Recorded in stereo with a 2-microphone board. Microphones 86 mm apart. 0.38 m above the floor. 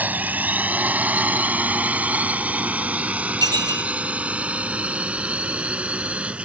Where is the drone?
20° right (ahead or behind); by 6.5 s 15° right (ahead or behind).